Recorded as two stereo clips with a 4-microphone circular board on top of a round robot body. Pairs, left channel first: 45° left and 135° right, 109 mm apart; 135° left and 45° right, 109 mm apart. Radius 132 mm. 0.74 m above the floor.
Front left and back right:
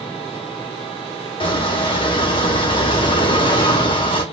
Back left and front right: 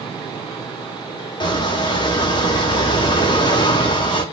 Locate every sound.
1.4 s a squeak: 85° left, 2 m